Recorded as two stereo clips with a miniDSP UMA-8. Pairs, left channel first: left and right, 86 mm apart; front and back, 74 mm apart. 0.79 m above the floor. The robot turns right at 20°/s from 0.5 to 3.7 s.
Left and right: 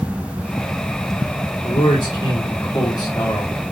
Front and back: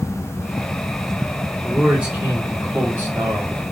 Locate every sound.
1.6 s a man speaking: 100° left, 1.5 m; by 3.5 s 140° left, 1.5 m